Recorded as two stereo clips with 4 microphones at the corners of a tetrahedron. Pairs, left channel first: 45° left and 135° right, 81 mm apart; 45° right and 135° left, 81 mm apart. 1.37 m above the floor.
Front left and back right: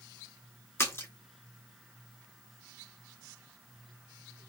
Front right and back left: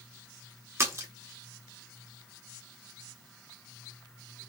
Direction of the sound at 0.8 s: 90° left.